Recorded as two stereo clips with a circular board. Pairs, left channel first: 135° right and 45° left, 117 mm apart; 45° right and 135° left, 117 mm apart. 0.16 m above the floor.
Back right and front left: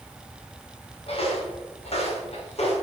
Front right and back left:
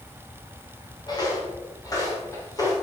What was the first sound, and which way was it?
Footsteps, 100° right.